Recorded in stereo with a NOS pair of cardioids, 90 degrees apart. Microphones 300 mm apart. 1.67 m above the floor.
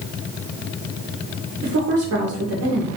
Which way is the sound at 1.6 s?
70° right.